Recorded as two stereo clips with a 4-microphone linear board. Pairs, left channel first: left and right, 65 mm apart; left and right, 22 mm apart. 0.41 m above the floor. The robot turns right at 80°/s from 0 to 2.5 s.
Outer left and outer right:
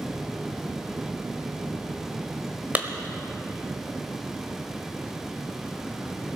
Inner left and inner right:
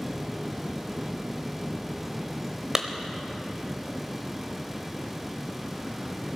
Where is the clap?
25° right (ahead or behind), 1.2 m.